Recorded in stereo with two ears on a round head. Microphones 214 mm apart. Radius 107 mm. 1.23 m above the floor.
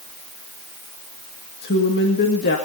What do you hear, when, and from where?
1.6 s a woman speaking: 45° left (ahead or behind), 2 m